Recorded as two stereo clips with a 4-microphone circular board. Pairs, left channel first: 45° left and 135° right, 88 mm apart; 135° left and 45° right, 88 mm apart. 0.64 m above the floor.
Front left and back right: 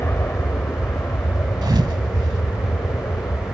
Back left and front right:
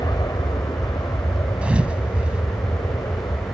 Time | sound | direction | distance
0.0 | an aircraft | 105° left | ?
1.6 | a thud | 120° right | ?